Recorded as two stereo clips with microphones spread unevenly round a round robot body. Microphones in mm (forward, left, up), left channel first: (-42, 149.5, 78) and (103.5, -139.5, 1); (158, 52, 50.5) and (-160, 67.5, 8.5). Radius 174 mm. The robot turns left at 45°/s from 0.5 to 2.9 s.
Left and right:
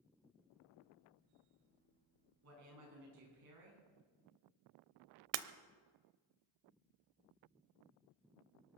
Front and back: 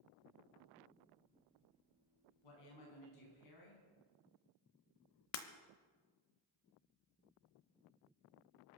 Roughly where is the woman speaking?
Ahead.